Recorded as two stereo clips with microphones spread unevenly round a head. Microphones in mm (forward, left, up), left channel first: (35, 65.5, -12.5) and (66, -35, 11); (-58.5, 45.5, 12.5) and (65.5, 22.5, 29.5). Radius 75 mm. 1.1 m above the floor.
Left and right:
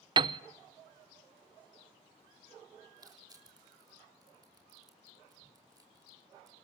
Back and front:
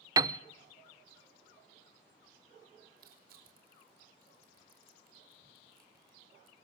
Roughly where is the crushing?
Ahead.